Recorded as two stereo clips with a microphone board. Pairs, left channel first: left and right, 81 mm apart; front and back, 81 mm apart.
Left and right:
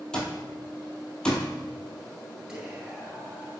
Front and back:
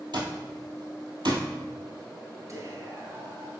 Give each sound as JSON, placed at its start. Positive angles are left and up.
{"t": 0.1, "sound": "an alarm clock", "azimuth_deg": 165, "distance_m": 1.5}
{"t": 2.5, "sound": "whispering", "azimuth_deg": -170, "distance_m": 1.5}